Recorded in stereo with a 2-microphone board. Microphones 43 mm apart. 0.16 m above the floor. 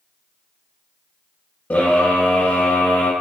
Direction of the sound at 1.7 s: 50° left (ahead or behind).